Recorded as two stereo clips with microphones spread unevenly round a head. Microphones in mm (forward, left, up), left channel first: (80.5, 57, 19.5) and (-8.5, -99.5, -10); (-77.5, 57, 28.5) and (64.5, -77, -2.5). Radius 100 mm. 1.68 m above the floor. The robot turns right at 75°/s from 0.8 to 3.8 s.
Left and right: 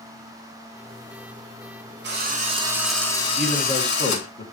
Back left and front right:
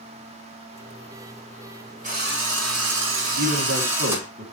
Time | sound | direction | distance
2.0 | a drill | 95° right | 4.5 m
3.4 | a man speaking | 30° right | 2.0 m